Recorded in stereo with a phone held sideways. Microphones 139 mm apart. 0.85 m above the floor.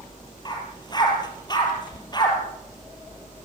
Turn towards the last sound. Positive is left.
turn(degrees=30)  # may be behind; listen again after turning